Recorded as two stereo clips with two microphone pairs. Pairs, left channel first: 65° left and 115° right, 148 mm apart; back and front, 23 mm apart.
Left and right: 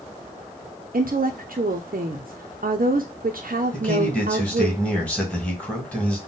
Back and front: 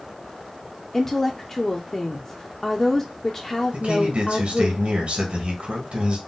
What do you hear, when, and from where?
0.9 s a woman speaking: 115° right, 0.5 m
3.7 s a man speaking: 15° right, 1.7 m